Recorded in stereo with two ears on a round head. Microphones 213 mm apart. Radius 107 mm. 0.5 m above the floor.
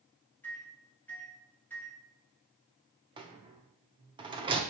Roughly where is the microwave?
Centre.